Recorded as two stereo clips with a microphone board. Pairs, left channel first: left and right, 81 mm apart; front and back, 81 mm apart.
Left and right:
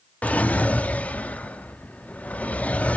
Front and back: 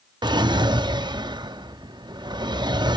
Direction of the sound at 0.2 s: 160° left.